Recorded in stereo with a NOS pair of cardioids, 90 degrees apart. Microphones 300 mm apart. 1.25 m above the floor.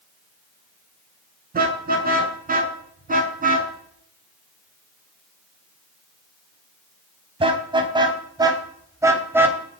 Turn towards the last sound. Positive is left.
turn(degrees=-5)